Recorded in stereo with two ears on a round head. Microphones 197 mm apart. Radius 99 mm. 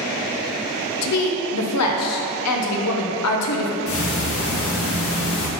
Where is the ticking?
70° left (ahead or behind), 1.3 m.